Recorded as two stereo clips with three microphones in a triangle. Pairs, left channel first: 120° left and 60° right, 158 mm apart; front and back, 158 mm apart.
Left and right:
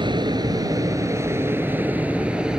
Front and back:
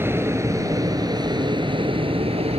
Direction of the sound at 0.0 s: 110° right.